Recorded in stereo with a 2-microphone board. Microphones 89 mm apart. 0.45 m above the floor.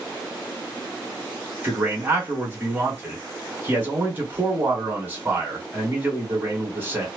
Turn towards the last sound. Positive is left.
turn(degrees=-25)  # may be behind; listen again after turning